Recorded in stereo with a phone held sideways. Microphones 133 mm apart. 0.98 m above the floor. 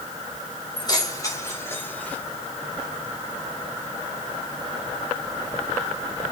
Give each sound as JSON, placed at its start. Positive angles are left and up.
{"t": 0.8, "sound": "keys jangling", "side_deg": 35, "distance_m": 3.5}